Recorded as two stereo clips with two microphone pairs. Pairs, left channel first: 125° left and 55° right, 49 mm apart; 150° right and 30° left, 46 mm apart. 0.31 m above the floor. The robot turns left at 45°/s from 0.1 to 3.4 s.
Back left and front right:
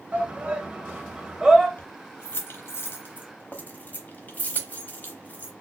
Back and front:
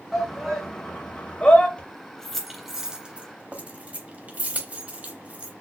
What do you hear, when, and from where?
0.1 s a shout: 65° right, 1.0 m; by 1.7 s 135° right, 1.0 m
1.8 s keys jangling: 155° left, 0.9 m; by 5.5 s 80° left, 0.9 m